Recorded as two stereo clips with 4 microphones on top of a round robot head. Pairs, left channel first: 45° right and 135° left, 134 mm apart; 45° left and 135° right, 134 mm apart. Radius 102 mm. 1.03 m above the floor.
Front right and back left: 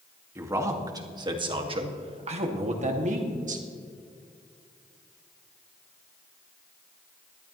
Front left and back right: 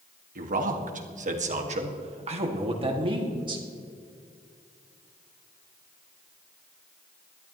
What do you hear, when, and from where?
0.3 s a man speaking: 150° right, 1.9 m; by 3.6 s 165° left, 2.5 m